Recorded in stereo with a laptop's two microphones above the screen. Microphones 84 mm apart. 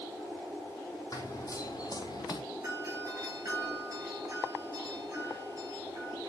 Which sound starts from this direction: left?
Running footsteps, at 1.1 s.